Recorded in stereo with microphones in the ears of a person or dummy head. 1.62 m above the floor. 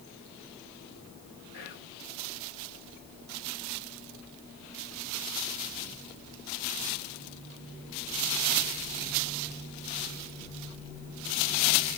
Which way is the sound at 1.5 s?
65° left (ahead or behind).